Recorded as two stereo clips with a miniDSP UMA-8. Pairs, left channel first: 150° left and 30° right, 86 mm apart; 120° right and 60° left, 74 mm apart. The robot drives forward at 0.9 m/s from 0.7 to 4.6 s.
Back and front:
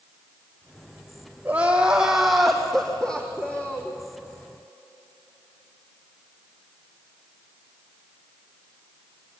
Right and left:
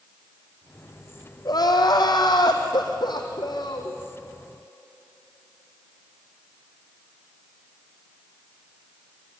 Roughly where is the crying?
Right.